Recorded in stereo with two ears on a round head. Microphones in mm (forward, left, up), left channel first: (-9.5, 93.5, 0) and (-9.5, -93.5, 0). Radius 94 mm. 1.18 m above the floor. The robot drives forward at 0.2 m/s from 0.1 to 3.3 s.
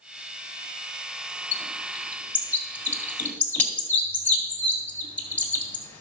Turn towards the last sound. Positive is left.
turn(degrees=10)  # may be behind; listen again after turning